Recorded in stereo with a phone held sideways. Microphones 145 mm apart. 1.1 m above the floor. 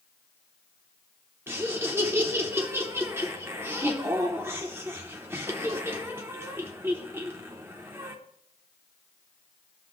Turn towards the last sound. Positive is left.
turn(degrees=-15)  # may be behind; listen again after turning